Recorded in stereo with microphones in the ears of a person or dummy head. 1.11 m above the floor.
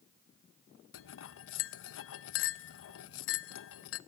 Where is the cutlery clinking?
65° left (ahead or behind), 0.5 m.